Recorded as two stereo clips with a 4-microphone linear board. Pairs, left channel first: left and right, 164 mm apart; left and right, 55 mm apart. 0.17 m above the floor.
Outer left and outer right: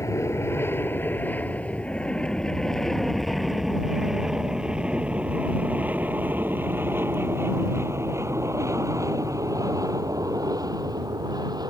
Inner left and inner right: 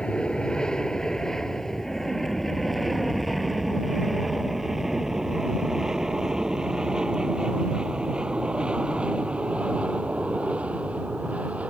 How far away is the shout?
No shout in this recording.